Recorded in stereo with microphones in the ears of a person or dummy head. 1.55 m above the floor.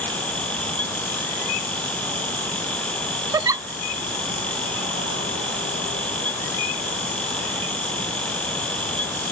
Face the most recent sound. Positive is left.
turn(degrees=-15)  # may be behind; listen again after turning